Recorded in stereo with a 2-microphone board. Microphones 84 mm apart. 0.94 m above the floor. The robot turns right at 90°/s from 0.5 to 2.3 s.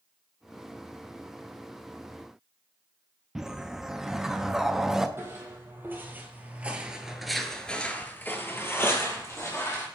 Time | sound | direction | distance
3.4 | a whoosh | 5° right (ahead or behind) | 0.5 m
5.2 | footsteps | 30° right (ahead or behind) | 1.9 m